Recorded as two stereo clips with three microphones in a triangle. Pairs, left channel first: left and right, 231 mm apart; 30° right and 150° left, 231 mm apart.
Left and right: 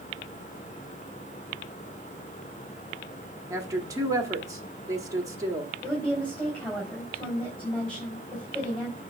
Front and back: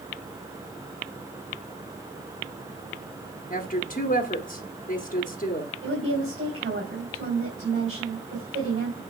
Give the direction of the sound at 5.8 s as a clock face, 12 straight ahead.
6 o'clock.